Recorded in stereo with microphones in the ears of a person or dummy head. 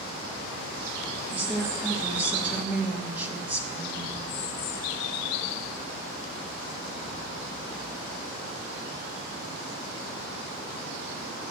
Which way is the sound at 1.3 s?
10° right (ahead or behind).